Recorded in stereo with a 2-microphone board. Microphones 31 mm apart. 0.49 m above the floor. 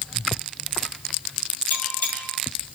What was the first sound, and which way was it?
A bell, 65° left (ahead or behind).